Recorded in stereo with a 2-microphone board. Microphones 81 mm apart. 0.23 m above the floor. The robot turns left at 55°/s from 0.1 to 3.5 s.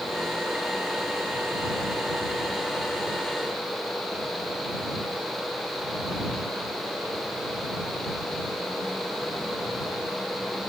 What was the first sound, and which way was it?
Only background noise.